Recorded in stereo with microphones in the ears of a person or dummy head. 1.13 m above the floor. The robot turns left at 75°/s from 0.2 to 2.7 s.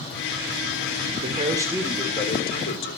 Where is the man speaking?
130° right, 3.5 m; by 3.0 s 115° left, 3.5 m.